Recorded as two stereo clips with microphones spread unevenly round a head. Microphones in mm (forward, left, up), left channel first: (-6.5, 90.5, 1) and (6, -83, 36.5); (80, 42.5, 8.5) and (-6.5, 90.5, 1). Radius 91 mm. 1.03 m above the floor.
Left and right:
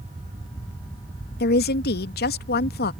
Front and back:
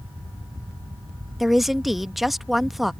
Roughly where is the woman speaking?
Ahead left.